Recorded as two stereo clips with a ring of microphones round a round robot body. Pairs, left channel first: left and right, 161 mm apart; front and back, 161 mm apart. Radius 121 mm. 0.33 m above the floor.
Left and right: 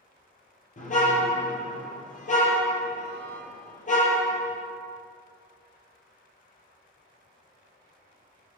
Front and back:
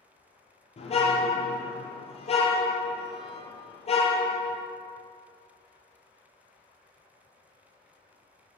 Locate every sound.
0.8 s a car horn: 50° left, 4.5 m